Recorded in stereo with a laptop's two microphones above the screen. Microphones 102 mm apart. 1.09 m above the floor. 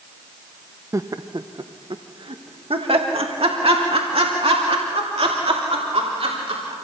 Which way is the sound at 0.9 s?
30° right (ahead or behind).